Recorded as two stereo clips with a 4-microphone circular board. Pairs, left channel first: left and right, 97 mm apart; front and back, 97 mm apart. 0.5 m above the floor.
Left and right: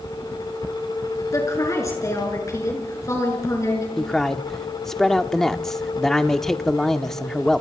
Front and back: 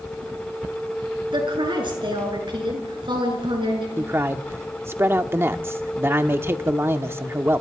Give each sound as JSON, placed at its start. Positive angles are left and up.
{"t": 1.3, "sound": "a woman speaking", "azimuth_deg": 145, "distance_m": 6.5}
{"t": 4.0, "sound": "a man speaking", "azimuth_deg": 170, "distance_m": 0.9}